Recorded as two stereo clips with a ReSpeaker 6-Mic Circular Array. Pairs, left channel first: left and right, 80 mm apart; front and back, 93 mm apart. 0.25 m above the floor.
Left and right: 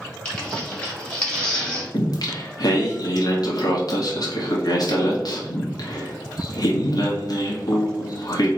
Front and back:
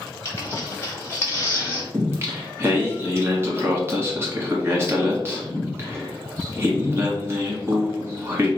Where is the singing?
120° left, 1.1 m.